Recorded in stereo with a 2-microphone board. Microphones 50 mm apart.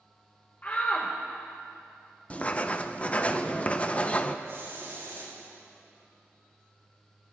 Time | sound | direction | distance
0.6 | a shout | 35° left (ahead or behind) | 1.3 m
2.3 | writing | 25° left (ahead or behind) | 0.7 m
4.5 | a hiss | 55° right (ahead or behind) | 4.5 m